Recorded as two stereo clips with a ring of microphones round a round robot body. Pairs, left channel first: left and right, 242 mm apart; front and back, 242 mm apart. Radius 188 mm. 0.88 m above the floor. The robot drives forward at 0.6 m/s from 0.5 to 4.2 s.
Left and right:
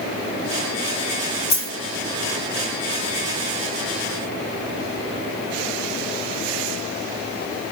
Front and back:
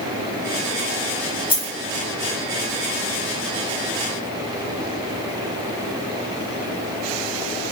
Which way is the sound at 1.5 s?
70° left.